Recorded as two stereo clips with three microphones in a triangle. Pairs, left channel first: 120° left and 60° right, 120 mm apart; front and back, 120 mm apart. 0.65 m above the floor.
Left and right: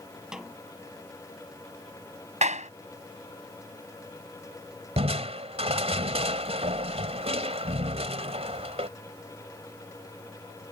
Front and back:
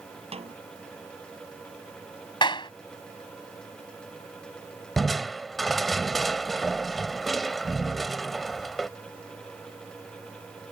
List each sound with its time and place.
0.3 s a snare drum: 145° right
2.4 s a clap: 50° right
5.0 s crushing: 90° right